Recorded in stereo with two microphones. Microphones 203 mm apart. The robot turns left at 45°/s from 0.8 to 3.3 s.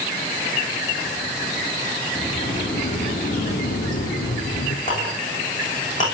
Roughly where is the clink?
Left.